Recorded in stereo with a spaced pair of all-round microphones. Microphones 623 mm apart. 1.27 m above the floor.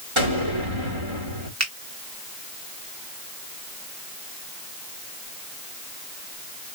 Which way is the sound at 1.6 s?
25° right (ahead or behind).